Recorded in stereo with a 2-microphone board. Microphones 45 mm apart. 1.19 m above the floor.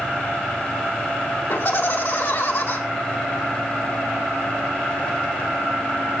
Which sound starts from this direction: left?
Laughter, at 1.5 s.